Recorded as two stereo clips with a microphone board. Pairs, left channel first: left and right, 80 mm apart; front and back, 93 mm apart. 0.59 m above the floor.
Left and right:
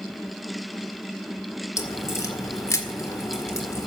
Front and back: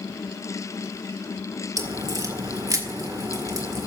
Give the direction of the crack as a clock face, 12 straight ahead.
7 o'clock.